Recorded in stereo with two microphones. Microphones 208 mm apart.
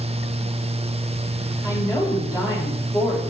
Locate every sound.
1.6 s a woman speaking: 15° left (ahead or behind), 6 m